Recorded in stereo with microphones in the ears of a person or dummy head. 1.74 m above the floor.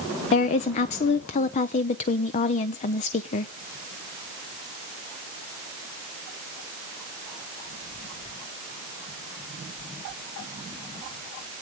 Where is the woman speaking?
35° left (ahead or behind), 0.7 m.